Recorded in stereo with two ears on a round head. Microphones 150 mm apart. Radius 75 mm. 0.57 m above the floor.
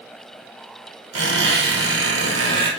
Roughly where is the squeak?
Right.